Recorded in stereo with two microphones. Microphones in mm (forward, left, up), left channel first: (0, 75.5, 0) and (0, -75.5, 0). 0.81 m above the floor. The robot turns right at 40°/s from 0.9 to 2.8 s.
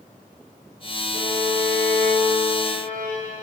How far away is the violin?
About 3.5 m.